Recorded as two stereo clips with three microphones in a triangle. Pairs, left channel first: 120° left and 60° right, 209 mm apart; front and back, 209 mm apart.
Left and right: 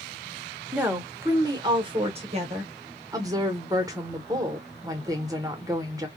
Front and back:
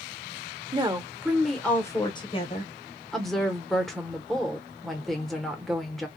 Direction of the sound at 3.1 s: 90° right.